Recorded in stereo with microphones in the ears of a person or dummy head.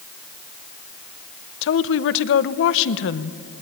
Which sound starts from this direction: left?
A woman speaking, at 1.6 s.